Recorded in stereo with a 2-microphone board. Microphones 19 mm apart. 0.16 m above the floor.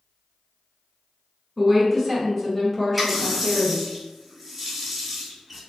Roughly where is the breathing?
No breathing in this recording.